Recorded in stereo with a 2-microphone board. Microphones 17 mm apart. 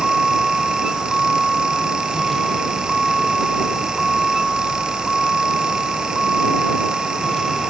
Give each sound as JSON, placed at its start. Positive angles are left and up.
{"t": 0.0, "sound": "a vehicle", "side_deg": 5}